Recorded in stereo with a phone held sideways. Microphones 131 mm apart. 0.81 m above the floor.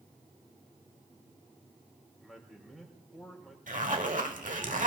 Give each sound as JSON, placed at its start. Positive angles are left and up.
{"t": 2.2, "sound": "a man speaking", "side_deg": 0, "distance_m": 4.0}
{"t": 3.7, "sound": "a zipper", "side_deg": -80, "distance_m": 1.2}